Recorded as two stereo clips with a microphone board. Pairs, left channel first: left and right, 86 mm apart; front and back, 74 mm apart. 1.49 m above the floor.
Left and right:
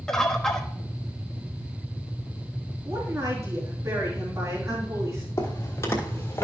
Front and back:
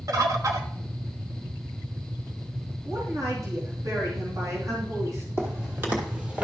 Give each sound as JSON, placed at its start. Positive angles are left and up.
{"t": 0.1, "sound": "a bird", "azimuth_deg": 170, "distance_m": 1.1}
{"t": 2.9, "sound": "a woman speaking", "azimuth_deg": -140, "distance_m": 3.0}
{"t": 5.4, "sound": "footsteps", "azimuth_deg": 130, "distance_m": 2.5}